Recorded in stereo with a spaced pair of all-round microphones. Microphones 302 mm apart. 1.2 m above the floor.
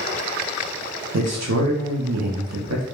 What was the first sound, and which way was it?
A man speaking, 60° right (ahead or behind).